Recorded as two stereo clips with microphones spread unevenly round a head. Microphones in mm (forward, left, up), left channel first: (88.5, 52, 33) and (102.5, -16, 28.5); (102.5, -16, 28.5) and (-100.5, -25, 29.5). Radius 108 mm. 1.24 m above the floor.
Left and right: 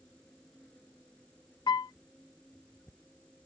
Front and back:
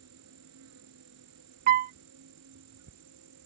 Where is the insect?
175° right.